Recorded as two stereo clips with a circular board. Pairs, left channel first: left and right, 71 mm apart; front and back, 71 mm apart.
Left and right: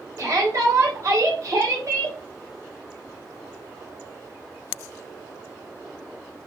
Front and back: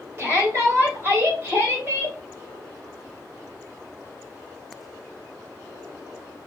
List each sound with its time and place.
0.2 s a shout: 125° right, 3 m